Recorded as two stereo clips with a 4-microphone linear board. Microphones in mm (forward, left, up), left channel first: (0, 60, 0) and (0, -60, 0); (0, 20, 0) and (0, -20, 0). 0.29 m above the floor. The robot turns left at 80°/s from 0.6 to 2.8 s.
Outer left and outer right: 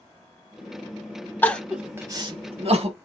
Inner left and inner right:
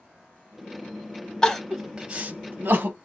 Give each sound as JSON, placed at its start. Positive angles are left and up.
{"t": 1.4, "sound": "crying", "side_deg": 20, "distance_m": 0.8}